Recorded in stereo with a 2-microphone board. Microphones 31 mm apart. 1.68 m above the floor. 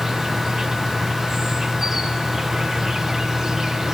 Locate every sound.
0.0 s an insect: 15° right (ahead or behind), 0.8 m